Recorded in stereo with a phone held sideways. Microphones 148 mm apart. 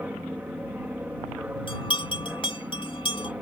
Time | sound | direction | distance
0.0 | an aircraft | 10° right (ahead or behind) | ?
1.7 | a bell | 35° left (ahead or behind) | ?